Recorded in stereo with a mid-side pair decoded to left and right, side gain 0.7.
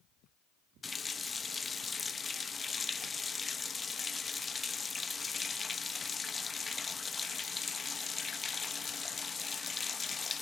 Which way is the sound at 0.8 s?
20° left.